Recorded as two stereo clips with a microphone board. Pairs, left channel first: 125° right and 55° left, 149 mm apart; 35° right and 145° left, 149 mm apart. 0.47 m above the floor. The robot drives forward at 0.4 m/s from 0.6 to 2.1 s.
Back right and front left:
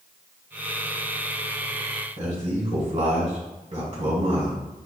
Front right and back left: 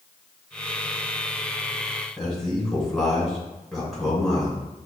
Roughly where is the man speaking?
Ahead left.